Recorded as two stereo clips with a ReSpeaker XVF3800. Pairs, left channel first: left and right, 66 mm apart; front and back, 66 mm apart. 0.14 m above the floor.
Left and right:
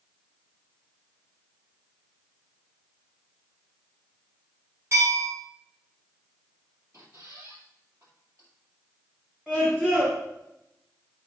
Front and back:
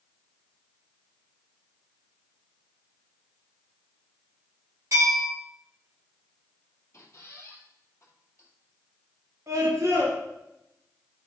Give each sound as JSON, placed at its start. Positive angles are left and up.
{"t": 4.9, "sound": "a bell", "azimuth_deg": -140, "distance_m": 5.0}
{"t": 6.9, "sound": "a squeak", "azimuth_deg": -50, "distance_m": 2.5}
{"t": 9.5, "sound": "a scream", "azimuth_deg": -160, "distance_m": 2.5}